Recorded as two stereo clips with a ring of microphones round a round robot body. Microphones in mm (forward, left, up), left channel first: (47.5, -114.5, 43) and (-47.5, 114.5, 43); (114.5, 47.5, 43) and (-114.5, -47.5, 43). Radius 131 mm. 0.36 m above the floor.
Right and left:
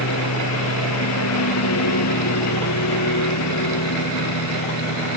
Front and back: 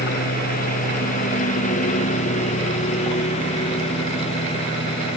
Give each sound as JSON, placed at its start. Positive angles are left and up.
{"t": 0.0, "sound": "a lawn mower", "azimuth_deg": -35}